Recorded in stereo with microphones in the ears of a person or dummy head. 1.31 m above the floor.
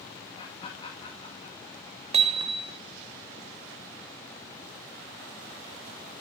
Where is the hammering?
35° right (ahead or behind), 0.9 m.